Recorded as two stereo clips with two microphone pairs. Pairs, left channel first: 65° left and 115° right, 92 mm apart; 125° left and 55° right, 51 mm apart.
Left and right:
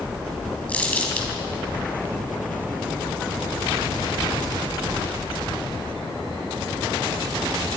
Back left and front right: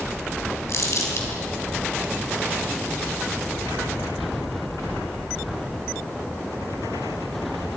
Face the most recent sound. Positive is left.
turn(degrees=135)